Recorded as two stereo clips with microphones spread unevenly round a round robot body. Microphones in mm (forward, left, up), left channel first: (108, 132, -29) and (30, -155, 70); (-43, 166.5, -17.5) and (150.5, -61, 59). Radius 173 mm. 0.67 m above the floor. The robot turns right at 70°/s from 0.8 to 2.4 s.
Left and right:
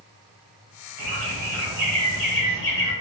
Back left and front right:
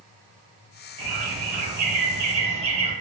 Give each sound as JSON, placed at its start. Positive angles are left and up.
{"t": 1.0, "sound": "a bird", "azimuth_deg": -80, "distance_m": 1.5}